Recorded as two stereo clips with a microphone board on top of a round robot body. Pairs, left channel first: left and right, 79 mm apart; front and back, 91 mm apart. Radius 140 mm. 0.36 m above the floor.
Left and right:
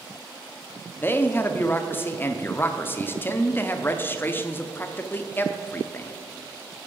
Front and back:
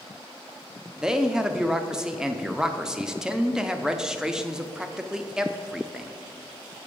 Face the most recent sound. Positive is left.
turn(degrees=105)